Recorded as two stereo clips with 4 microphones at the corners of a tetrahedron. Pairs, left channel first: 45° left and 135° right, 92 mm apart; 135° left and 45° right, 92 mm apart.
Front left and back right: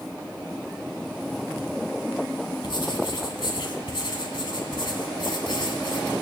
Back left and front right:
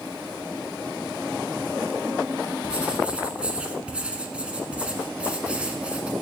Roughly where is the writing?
Ahead left.